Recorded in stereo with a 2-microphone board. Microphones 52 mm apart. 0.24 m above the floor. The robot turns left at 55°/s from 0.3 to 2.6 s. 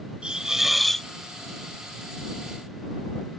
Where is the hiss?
155° right; by 1.1 s 165° left.